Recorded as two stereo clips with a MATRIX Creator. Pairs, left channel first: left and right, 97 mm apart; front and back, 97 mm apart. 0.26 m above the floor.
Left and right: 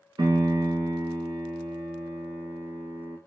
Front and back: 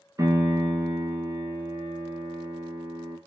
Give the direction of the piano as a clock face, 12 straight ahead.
4 o'clock.